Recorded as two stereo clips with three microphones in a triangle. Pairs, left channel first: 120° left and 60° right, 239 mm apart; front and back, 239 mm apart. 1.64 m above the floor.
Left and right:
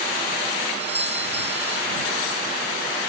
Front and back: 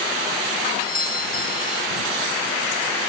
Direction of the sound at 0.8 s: 140° left.